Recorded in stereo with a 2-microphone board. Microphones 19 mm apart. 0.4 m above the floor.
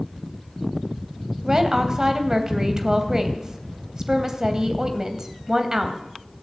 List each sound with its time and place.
1.4 s a woman speaking: 35° right (ahead or behind), 2.5 m